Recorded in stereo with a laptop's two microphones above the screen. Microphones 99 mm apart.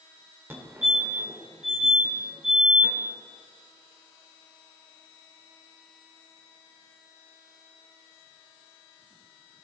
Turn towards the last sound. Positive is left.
turn(degrees=-20)  # may be behind; listen again after turning